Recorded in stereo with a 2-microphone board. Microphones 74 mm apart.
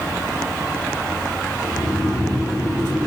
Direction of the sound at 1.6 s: 30° left (ahead or behind).